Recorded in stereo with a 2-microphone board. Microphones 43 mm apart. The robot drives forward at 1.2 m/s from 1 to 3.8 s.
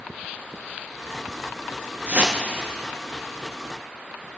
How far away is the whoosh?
About 0.8 m.